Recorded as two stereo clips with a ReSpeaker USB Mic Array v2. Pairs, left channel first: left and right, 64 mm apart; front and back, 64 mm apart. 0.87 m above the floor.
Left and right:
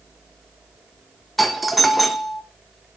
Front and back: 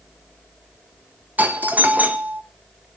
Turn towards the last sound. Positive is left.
turn(degrees=180)